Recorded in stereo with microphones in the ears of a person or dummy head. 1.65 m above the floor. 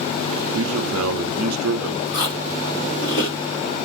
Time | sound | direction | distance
0.5 | a man speaking | 80° right | 0.6 m
2.1 | chewing | 50° left (ahead or behind) | 2 m